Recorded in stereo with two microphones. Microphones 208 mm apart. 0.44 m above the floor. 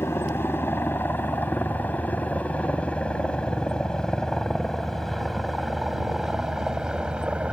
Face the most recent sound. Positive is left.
turn(degrees=-5)  # may be behind; listen again after turning